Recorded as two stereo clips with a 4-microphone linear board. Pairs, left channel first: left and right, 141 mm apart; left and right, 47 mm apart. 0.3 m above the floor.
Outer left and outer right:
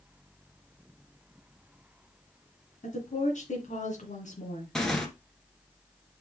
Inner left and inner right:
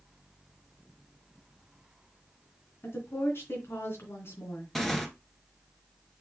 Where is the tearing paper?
5° left (ahead or behind), 1.4 m.